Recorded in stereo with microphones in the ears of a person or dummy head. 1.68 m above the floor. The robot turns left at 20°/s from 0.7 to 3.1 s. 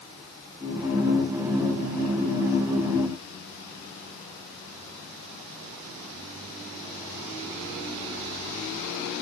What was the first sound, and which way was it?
Only background noise.